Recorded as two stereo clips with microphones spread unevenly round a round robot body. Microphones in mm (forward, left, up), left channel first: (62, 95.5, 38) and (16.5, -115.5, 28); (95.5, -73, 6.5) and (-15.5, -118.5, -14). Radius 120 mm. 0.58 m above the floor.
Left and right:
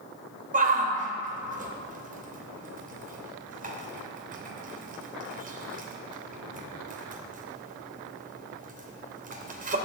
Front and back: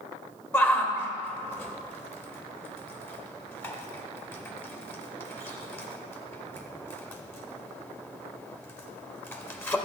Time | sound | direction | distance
0.5 | a shout | 55° right | 2.5 m